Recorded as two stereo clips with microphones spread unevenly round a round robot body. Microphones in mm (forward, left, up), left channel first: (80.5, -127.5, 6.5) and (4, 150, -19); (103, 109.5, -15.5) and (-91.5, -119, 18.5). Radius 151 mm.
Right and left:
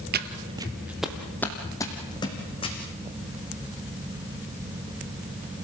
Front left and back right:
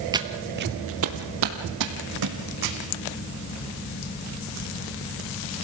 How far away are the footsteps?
About 1.2 m.